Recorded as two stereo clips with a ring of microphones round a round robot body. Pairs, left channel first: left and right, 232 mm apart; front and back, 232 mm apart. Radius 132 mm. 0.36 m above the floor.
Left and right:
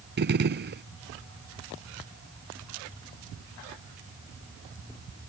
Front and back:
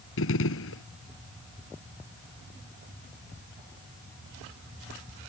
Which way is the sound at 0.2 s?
45° right.